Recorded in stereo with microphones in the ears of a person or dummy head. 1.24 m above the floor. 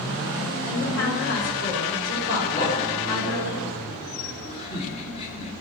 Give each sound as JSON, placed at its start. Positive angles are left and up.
{"t": 0.7, "sound": "a woman speaking", "side_deg": 85, "distance_m": 6.0}
{"t": 2.5, "sound": "laughter", "side_deg": 35, "distance_m": 3.0}